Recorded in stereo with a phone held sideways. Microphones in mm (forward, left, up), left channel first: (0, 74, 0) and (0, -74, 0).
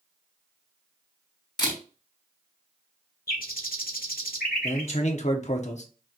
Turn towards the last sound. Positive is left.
turn(degrees=50)  # may be behind; listen again after turning